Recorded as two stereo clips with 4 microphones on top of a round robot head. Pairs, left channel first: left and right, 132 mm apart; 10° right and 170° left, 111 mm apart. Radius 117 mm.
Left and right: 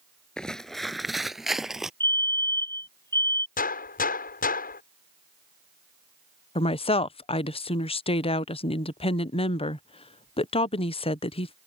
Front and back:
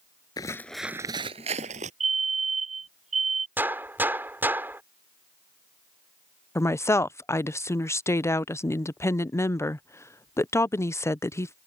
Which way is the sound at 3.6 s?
100° left.